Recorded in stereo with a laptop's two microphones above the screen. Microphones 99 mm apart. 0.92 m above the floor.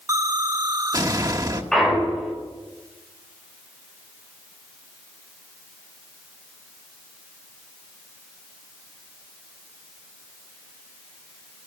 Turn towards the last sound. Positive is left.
turn(degrees=5)  # may be behind; listen again after turning